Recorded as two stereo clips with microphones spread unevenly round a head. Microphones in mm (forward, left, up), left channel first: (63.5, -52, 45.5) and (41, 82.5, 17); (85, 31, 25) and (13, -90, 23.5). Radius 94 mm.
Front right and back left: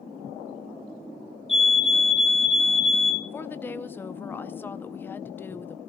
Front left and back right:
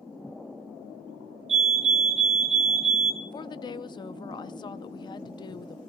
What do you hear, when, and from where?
1.5 s a fire alarm: 175° right, 3.5 m
3.2 s a woman speaking: straight ahead, 0.6 m